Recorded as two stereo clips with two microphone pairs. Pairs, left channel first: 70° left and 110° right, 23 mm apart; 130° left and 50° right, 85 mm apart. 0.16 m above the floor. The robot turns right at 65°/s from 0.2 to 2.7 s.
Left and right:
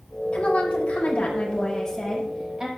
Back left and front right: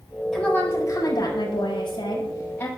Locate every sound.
0.3 s a woman speaking: 45° left, 7 m; by 2.7 s 165° right, 7 m